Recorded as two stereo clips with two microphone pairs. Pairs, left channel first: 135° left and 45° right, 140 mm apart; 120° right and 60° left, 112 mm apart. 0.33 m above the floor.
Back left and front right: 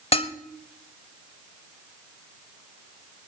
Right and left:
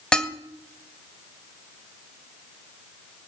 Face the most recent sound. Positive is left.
turn(degrees=155)